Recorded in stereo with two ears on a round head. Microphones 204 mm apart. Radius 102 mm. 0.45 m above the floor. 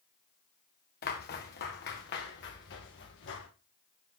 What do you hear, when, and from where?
1.0 s footsteps: 45° left (ahead or behind), 2.5 m; by 3.5 s 55° left (ahead or behind), 4 m